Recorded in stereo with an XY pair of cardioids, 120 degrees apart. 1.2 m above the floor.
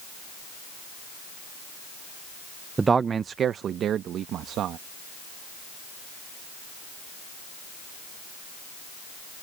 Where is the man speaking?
20° right; by 4.8 s 70° right.